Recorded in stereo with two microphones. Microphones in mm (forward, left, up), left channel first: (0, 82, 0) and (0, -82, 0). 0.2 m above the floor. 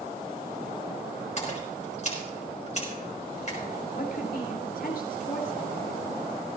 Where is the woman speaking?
65° left (ahead or behind), 3.5 m.